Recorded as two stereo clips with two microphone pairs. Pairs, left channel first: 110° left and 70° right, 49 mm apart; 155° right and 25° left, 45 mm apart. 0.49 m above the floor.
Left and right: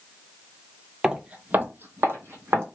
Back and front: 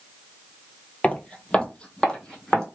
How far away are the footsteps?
About 0.5 m.